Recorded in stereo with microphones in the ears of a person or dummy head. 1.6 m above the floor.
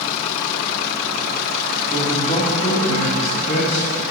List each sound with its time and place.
1.9 s a man speaking: 20° left (ahead or behind), 3 m; by 4.0 s 65° left (ahead or behind), 2 m